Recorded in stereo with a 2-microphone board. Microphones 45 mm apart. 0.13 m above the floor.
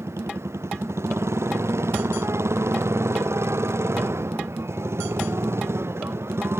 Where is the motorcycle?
90° right; by 6.6 s 70° right (ahead or behind).